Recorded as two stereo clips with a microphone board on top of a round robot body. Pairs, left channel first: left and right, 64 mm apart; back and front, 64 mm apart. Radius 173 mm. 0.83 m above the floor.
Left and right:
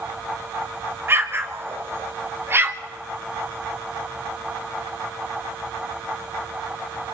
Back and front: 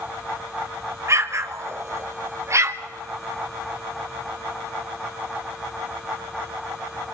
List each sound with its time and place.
1.1 s an explosion: 40° right, 1.8 m